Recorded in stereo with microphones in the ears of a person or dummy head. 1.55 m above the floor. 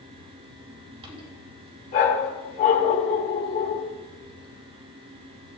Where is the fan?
25° right (ahead or behind), 2 m.